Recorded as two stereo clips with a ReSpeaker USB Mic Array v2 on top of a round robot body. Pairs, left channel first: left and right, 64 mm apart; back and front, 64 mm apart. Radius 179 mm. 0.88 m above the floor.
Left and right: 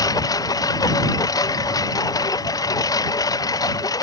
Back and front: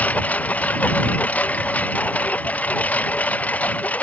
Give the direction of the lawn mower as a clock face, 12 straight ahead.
8 o'clock.